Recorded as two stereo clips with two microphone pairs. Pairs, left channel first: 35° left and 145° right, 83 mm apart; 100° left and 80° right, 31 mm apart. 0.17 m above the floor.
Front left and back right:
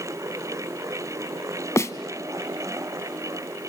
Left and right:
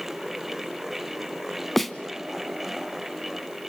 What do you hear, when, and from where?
1.8 s a snare drum: 20° left, 0.8 m